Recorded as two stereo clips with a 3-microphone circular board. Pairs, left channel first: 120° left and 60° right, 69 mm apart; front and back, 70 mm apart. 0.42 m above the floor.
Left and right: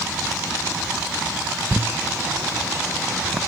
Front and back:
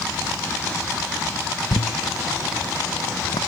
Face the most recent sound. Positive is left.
turn(degrees=10)